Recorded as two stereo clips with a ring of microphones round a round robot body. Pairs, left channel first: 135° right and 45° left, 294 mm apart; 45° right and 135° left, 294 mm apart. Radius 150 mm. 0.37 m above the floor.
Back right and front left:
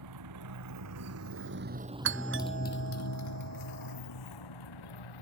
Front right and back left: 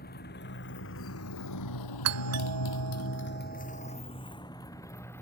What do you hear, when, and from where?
0.0 s a motorcycle: 15° left; by 5.2 s 130° right
2.0 s a doorbell: 95° left